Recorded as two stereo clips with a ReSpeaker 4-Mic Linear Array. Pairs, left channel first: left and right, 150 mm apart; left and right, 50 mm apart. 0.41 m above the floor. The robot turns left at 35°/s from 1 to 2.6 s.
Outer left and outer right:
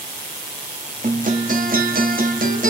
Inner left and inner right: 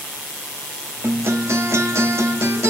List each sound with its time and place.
1.0 s a guitar: 55° right, 1.2 m; by 2.7 s 110° right, 1.2 m